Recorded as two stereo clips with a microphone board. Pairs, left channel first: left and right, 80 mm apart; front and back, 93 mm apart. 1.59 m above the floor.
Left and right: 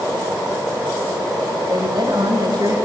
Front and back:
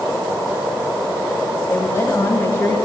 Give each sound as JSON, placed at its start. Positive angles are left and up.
{"t": 1.7, "sound": "a woman speaking", "azimuth_deg": -50, "distance_m": 9.0}